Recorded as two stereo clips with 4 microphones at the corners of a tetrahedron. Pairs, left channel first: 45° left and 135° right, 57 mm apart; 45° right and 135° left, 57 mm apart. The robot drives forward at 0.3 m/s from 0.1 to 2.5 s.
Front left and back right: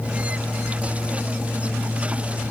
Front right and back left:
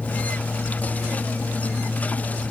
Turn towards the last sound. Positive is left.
No sound to turn to.